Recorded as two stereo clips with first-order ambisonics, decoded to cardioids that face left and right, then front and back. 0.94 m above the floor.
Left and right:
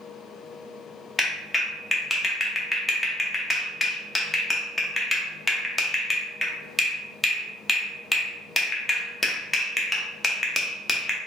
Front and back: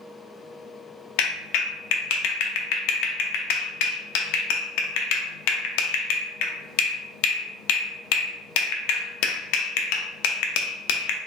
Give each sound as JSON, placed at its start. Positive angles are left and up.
{"t": 1.2, "sound": "a clap", "azimuth_deg": 10, "distance_m": 0.5}